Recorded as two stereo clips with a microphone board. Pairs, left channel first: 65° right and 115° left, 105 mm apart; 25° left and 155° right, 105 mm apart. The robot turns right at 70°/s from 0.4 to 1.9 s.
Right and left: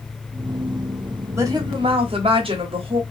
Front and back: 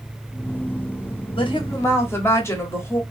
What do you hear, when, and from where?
1.4 s a woman speaking: 50° left, 1.1 m; by 3.0 s 90° left, 1.1 m